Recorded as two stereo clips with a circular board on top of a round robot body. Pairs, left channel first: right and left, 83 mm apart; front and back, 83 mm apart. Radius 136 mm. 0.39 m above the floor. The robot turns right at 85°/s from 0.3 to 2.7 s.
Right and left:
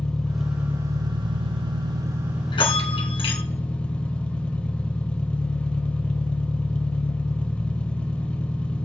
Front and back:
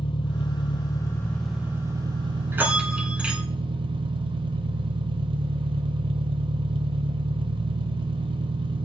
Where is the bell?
120° right, 2 m; by 3.4 s 100° right, 2 m.